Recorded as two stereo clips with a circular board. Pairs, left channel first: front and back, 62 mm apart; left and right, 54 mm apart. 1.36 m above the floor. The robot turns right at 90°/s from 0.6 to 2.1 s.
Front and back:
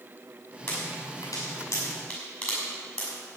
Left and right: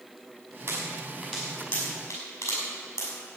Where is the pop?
70° right, 5.5 m; by 3.1 s 60° left, 5.5 m.